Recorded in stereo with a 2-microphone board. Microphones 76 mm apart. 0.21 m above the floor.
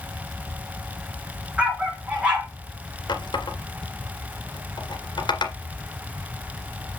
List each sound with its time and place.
1.6 s a dog barking: 15° right (ahead or behind), 4 m
3.1 s a running tap: 70° left (ahead or behind), 2 m